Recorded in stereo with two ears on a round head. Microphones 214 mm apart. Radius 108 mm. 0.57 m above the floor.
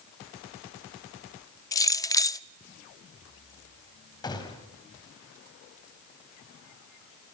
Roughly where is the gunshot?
Centre.